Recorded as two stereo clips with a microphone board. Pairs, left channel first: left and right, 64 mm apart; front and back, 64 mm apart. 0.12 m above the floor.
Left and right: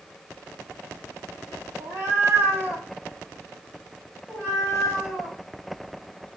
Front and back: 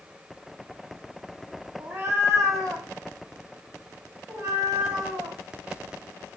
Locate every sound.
1.8 s a cat meowing: 125° right, 0.7 m; by 5.4 s 175° right, 2 m